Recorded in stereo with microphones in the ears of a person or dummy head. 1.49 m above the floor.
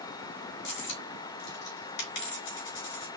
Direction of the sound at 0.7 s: 60° left (ahead or behind).